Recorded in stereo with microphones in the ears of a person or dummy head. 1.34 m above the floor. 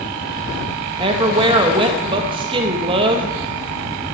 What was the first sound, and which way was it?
A woman speaking, 25° right (ahead or behind).